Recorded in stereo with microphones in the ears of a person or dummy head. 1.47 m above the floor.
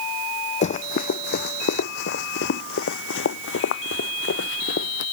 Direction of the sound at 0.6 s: 45° left (ahead or behind).